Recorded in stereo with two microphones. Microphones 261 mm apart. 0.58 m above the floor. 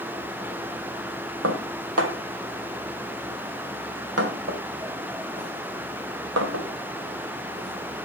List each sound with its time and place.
1.4 s dishes clattering: 65° right (ahead or behind), 1.8 m